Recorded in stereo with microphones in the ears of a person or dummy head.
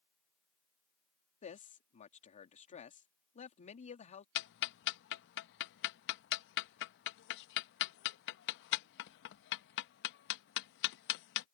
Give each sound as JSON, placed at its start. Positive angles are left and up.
{"t": 1.4, "sound": "a man speaking", "side_deg": 35}
{"t": 4.3, "sound": "ticking", "side_deg": 60}